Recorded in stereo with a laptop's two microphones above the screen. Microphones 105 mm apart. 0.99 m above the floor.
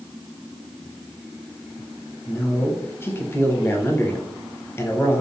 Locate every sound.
2.3 s a man speaking: 25° left (ahead or behind), 0.7 m